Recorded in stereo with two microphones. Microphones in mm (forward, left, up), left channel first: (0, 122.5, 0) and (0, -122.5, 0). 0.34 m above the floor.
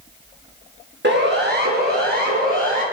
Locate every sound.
1.0 s a siren: 45° right (ahead or behind), 4 m; by 2.8 s 35° right (ahead or behind), 5.5 m